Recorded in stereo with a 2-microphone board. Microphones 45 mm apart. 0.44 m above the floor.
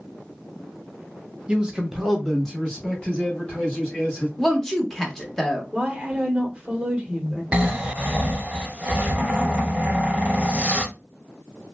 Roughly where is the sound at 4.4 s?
Centre.